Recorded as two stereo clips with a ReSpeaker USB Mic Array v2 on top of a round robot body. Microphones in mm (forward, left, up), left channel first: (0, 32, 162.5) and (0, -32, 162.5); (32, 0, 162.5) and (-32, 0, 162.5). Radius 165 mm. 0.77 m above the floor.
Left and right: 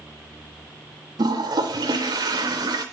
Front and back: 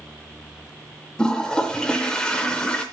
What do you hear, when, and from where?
1.2 s a toilet flushing: 80° right, 0.5 m